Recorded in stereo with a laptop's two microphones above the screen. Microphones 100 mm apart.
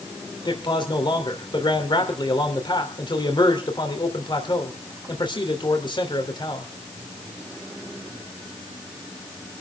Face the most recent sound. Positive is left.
turn(degrees=50)  # may be behind; listen again after turning